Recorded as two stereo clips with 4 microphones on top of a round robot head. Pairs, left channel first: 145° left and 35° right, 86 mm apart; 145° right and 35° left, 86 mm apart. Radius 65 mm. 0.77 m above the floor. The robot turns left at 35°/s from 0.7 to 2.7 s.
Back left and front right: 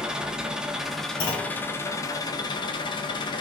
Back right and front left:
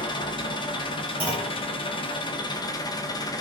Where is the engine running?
115° right, 0.7 m; by 3.4 s 175° left, 0.7 m.